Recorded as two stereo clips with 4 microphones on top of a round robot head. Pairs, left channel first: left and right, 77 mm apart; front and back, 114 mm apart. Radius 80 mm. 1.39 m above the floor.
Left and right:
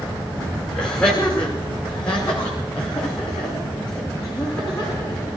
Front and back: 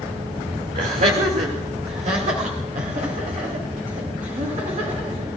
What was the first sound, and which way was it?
Laughter, 170° left.